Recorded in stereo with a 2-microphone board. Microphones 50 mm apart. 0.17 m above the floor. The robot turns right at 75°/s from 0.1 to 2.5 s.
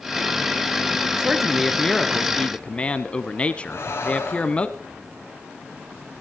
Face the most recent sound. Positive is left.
turn(degrees=55)  # may be behind; listen again after turning